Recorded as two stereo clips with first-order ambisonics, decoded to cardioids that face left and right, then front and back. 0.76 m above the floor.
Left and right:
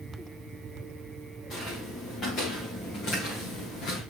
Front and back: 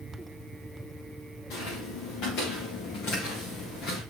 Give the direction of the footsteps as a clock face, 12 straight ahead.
11 o'clock.